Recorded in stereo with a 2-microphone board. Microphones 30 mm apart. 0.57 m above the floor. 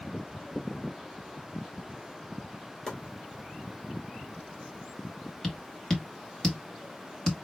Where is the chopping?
25° left (ahead or behind), 3 m.